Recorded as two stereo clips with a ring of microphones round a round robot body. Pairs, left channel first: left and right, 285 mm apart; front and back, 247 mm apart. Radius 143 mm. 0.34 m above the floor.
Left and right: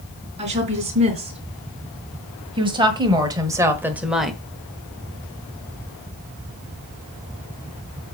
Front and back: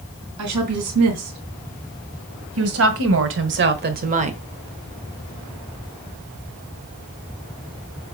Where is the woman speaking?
160° right, 3 m; by 4.4 s 175° left, 0.9 m.